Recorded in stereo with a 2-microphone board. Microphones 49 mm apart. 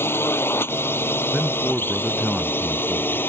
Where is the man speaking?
10° right (ahead or behind).